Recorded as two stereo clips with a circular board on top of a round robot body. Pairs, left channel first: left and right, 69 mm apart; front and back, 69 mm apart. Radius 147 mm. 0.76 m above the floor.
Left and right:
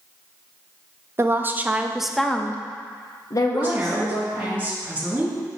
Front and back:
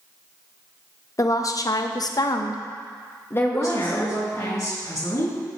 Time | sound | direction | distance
1.2 | a woman speaking | 35° right | 0.9 m
3.5 | a woman speaking | 25° right | 2.5 m